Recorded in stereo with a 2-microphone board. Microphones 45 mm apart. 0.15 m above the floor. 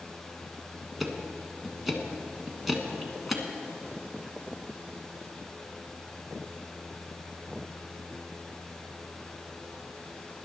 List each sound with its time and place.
1.0 s ticking: 5° right (ahead or behind), 1.3 m